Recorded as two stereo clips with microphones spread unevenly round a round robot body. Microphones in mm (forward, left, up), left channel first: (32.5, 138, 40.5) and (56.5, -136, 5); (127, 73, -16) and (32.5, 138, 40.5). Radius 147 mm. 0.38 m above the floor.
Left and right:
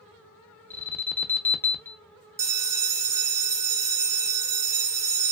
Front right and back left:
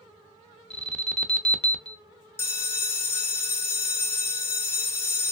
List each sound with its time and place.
0.7 s an alarm: 5° left, 0.6 m
2.4 s a bell: 15° right, 0.5 m